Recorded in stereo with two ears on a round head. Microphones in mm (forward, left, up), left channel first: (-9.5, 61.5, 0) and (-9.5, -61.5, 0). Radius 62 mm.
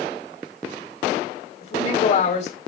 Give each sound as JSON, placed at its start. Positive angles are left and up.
{"t": 1.6, "sound": "a woman speaking", "side_deg": 55, "distance_m": 4.0}